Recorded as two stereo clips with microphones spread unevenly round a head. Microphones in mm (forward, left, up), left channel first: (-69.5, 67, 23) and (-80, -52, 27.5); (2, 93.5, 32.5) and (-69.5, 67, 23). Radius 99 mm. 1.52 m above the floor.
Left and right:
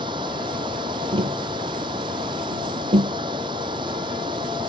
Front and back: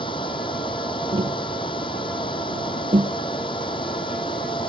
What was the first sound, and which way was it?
Running water, 25° right.